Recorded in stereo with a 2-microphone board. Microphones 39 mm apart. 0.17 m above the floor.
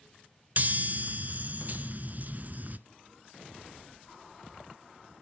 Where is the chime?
50° right (ahead or behind), 0.7 m.